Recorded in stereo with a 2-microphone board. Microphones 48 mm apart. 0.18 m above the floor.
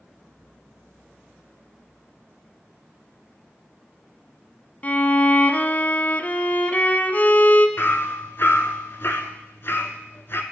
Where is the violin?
35° left (ahead or behind), 0.5 m.